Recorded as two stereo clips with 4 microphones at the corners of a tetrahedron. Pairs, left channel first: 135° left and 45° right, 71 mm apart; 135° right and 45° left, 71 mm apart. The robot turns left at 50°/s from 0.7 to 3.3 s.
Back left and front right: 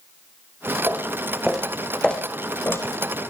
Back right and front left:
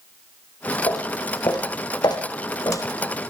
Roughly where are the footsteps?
Right.